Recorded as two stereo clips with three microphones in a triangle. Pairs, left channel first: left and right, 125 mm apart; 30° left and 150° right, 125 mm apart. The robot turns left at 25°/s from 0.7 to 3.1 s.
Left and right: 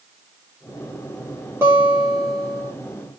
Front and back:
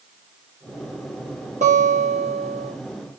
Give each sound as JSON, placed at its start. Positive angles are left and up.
{"t": 1.6, "sound": "a guitar", "azimuth_deg": -160, "distance_m": 6.0}